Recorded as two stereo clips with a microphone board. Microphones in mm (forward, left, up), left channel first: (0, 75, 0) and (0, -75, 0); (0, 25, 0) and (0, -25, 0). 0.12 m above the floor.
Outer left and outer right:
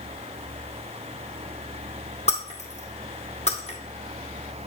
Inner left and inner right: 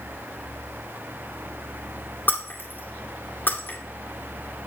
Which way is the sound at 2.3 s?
45° left (ahead or behind).